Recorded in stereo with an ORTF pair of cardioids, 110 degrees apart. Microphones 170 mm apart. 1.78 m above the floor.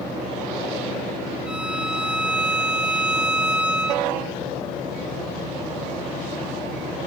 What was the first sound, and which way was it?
A violin, 5° right.